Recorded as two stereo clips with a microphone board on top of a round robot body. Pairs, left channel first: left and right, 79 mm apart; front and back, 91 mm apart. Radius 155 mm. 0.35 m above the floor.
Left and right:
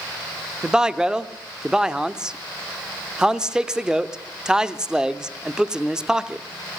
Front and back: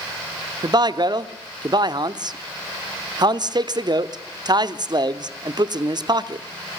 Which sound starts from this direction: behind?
A man speaking, at 0.6 s.